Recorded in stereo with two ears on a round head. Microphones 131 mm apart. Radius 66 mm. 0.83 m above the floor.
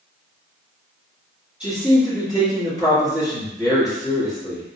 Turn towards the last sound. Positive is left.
turn(degrees=-10)  # may be behind; listen again after turning